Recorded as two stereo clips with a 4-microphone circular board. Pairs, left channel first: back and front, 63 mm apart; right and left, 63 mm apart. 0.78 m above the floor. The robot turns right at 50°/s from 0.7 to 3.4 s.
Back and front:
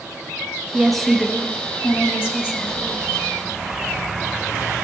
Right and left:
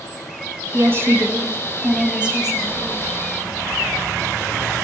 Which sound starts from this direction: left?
A woman speaking, at 0.7 s.